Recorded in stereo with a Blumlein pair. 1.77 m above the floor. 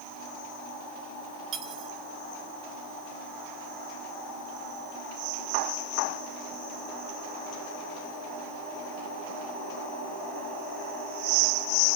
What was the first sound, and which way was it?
Cutlery clinking, 30° right.